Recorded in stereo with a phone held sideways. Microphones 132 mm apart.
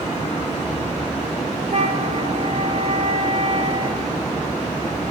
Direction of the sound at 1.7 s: 55° right (ahead or behind).